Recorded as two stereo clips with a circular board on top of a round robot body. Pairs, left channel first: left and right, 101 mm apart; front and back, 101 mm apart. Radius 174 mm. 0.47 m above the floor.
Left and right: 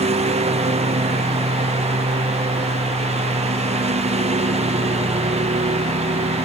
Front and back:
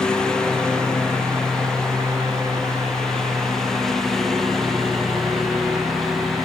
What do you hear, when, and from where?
0.0 s a lawn mower: 85° right; by 6.5 s 90° right